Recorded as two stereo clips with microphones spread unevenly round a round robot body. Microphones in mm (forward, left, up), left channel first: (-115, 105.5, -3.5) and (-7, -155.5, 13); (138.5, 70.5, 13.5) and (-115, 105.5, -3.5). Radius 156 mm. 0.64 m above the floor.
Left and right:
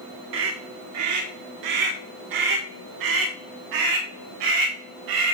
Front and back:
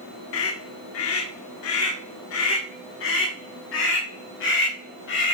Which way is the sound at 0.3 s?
30° right.